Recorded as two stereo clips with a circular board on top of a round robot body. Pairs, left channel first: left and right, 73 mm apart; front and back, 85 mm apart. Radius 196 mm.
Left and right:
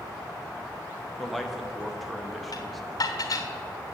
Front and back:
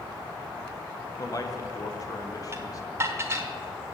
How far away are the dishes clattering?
About 1.0 m.